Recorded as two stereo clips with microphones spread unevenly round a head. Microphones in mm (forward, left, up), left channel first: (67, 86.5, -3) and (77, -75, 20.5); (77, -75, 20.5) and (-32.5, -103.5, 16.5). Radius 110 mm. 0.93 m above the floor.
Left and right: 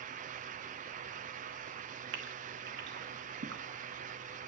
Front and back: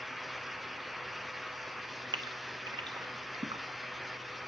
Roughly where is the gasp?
Behind right.